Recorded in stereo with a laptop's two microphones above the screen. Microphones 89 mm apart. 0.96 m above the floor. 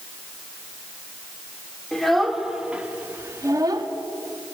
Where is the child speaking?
5° left (ahead or behind), 2 m; by 3.9 s 55° right (ahead or behind), 1.2 m.